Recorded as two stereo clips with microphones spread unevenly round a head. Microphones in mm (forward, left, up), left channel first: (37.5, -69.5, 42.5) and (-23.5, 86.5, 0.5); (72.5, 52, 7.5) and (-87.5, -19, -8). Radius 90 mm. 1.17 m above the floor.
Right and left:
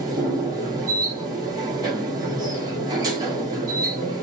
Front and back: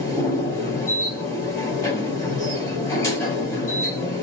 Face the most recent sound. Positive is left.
turn(degrees=30)